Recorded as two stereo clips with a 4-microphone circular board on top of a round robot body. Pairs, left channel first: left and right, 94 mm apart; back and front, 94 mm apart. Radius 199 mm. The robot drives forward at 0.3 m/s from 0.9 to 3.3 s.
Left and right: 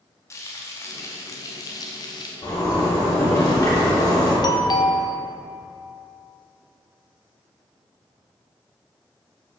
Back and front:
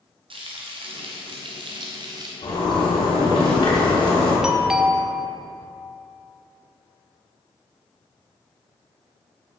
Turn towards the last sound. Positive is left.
turn(degrees=80)